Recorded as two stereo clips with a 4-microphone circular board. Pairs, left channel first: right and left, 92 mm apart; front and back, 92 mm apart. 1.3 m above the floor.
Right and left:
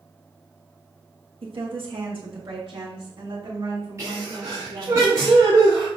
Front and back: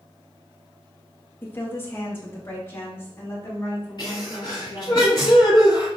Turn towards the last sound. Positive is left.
turn(degrees=40)